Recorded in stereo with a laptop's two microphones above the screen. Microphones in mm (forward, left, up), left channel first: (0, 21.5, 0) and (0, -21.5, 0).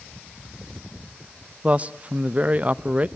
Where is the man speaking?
30° right (ahead or behind), 0.8 m.